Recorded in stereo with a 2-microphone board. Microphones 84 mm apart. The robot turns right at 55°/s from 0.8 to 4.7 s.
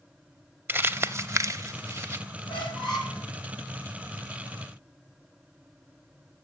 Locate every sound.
0.7 s crumpling: 25° right (ahead or behind), 0.5 m; by 2.2 s 30° right (ahead or behind), 0.5 m
2.5 s a squeak: 90° left, 3 m; by 3.2 s 130° left, 3 m